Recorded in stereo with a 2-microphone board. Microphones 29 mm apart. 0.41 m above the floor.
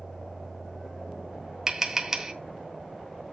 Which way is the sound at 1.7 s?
15° right (ahead or behind).